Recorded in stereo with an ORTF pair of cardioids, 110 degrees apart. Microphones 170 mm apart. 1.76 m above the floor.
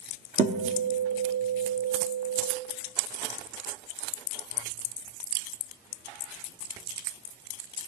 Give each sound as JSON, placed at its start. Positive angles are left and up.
{"t": 0.4, "sound": "a guitar", "azimuth_deg": -45, "distance_m": 1.2}